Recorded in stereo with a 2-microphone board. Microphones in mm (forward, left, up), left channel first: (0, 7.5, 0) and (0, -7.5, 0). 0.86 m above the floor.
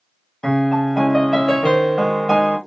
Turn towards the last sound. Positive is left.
turn(degrees=35)  # may be behind; listen again after turning